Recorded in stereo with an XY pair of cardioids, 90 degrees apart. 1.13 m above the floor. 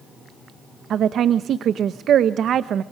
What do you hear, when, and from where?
0.9 s a woman speaking: 70° right, 0.8 m